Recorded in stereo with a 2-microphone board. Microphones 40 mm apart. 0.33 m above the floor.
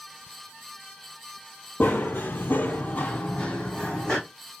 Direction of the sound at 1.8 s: 50° left (ahead or behind).